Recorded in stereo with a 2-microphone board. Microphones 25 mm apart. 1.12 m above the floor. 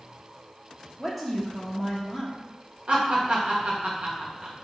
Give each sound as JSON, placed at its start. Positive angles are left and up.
{"t": 1.0, "sound": "a woman speaking", "side_deg": -5, "distance_m": 0.7}
{"t": 2.9, "sound": "laughter", "side_deg": -45, "distance_m": 1.1}